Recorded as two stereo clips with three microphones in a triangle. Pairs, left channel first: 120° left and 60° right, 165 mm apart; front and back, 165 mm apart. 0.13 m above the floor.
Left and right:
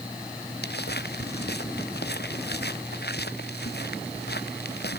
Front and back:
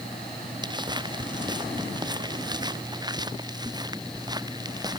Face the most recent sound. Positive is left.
turn(degrees=115)